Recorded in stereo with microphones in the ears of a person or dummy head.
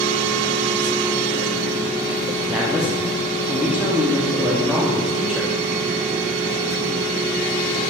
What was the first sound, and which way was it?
A woman speaking, centre (ahead or behind).